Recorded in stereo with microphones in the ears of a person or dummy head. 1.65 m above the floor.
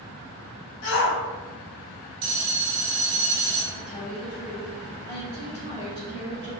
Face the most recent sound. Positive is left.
turn(degrees=30)  # may be behind; listen again after turning